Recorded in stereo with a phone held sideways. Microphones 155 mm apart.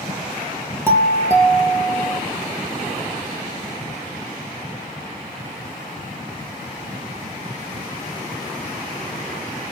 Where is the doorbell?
15° right (ahead or behind), 2.5 m.